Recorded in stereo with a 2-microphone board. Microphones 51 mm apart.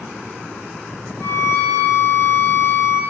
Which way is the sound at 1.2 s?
45° left (ahead or behind).